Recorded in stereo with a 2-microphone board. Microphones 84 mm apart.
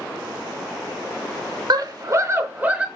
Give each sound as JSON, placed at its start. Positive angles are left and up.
{"t": 1.7, "sound": "a scream", "side_deg": -55, "distance_m": 0.7}